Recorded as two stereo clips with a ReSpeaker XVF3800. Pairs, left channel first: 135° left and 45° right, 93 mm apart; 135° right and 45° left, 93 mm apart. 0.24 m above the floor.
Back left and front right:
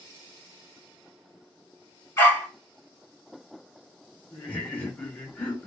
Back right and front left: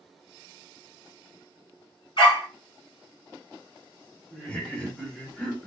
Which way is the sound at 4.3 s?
170° left.